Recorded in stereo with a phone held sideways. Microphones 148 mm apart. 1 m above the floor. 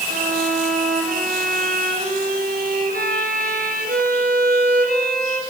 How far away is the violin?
About 3.5 m.